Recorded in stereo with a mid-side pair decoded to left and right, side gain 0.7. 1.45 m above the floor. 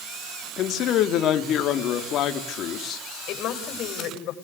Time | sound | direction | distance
0.6 | a man speaking | 50° left | 3.5 m
3.3 | a woman speaking | 55° left | 8 m